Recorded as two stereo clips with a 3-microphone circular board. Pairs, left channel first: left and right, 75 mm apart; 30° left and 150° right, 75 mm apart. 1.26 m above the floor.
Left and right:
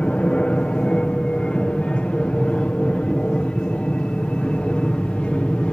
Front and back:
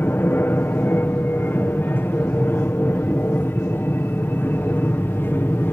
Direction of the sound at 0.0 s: 30° left.